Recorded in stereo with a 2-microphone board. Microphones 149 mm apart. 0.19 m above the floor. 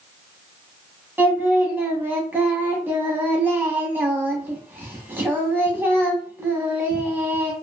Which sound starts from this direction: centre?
Singing, at 1.2 s.